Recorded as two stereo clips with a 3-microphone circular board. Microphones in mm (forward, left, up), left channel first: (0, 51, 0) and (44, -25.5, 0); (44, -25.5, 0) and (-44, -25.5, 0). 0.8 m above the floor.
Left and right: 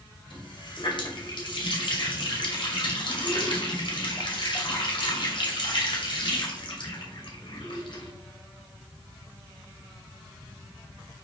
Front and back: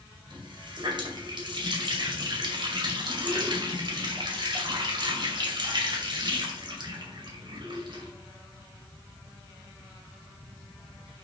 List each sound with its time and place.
0.3 s a running tap: 145° left, 2.5 m